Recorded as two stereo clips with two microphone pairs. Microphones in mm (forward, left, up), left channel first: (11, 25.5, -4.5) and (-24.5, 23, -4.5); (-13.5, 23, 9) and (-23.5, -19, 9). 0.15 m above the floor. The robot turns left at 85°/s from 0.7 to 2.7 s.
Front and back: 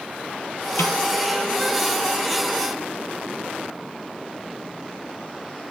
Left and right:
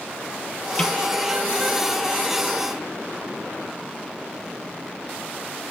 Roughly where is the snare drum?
Ahead.